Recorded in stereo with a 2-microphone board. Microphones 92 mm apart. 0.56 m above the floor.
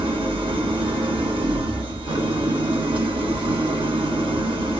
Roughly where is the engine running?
Right.